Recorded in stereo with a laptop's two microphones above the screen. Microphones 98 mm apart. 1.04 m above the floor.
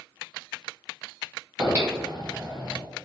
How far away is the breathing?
About 1.3 m.